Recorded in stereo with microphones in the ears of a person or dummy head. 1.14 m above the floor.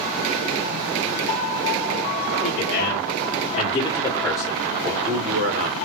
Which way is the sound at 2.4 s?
50° left (ahead or behind).